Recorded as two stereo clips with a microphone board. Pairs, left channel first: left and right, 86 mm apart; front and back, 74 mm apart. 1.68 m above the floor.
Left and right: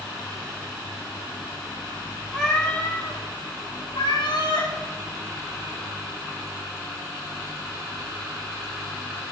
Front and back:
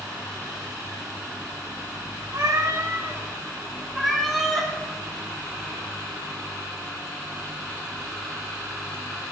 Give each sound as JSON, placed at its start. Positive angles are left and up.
{"t": 2.3, "sound": "a cat meowing", "azimuth_deg": 180, "distance_m": 1.9}